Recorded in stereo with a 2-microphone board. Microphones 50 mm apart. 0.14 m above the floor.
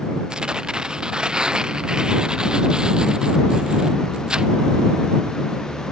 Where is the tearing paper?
15° right (ahead or behind).